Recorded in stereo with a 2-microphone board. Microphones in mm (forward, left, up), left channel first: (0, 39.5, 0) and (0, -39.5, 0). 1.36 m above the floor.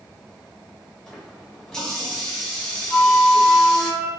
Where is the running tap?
10° left (ahead or behind), 1.1 m.